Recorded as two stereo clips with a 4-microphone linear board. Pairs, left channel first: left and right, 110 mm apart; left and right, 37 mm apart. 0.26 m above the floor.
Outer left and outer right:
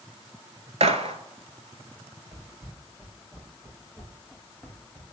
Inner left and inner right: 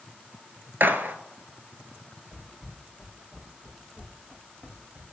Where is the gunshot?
75° right (ahead or behind), 0.6 m.